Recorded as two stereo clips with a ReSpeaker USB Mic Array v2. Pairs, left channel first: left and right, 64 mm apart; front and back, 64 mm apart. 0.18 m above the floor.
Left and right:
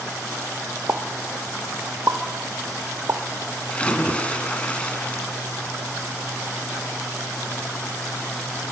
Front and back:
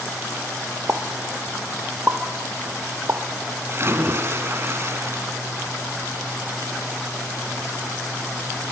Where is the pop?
130° right, 1.9 m.